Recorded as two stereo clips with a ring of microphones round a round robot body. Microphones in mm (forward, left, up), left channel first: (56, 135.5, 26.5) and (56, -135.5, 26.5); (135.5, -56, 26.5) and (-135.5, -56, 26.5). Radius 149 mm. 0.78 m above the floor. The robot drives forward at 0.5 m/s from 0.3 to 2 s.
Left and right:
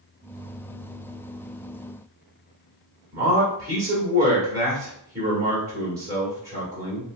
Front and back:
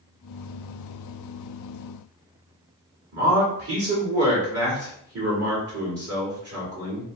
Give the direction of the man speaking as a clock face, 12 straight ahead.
5 o'clock.